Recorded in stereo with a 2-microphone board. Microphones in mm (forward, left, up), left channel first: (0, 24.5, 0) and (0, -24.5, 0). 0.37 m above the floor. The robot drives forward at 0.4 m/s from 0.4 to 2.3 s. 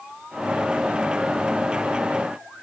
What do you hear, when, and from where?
Only background noise.